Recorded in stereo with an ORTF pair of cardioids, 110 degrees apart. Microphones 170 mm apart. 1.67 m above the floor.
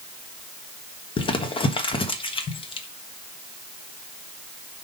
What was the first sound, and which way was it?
Crumpling, 30° left.